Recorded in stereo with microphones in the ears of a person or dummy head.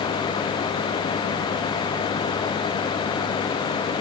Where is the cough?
No cough in this recording.